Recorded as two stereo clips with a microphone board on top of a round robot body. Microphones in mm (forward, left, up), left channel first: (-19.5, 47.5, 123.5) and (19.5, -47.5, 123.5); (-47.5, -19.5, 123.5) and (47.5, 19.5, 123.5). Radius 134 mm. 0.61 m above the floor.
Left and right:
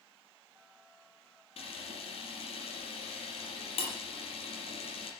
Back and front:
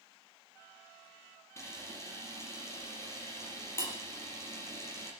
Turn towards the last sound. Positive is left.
turn(degrees=140)